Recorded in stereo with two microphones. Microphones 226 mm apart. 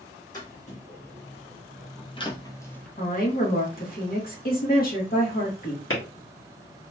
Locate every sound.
0.3 s footsteps: 35° left (ahead or behind), 1.9 m; by 2.9 s 5° left (ahead or behind), 0.8 m
3.0 s a woman speaking: 40° left (ahead or behind), 1.3 m
5.9 s a clap: 65° left (ahead or behind), 1.3 m